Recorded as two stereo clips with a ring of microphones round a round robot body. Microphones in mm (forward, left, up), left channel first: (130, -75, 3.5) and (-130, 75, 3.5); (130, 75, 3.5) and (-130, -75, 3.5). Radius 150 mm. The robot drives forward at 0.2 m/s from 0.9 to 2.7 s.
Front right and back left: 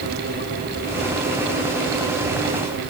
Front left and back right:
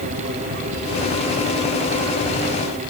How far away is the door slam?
No door slam in this recording.